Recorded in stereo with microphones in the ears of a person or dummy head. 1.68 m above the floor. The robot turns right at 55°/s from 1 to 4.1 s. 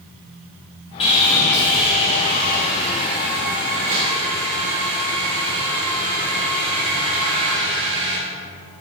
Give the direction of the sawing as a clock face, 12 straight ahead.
7 o'clock.